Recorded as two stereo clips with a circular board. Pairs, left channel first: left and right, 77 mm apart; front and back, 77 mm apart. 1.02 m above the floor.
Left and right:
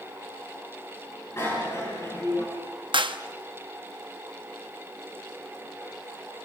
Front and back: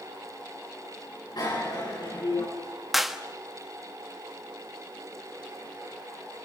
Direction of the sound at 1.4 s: 30° left.